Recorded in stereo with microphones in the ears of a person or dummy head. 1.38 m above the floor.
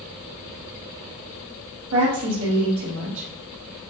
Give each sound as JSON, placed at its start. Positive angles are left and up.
{"t": 1.9, "sound": "a woman speaking", "side_deg": -90, "distance_m": 2.0}